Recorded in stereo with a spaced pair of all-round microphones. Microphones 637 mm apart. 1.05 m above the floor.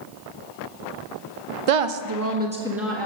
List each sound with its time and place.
1.7 s a woman speaking: 60° right (ahead or behind), 0.6 m; by 3.1 s 5° left (ahead or behind), 1.4 m